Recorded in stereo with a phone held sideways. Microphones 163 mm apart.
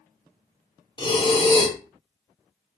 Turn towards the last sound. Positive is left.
turn(degrees=30)  # may be behind; listen again after turning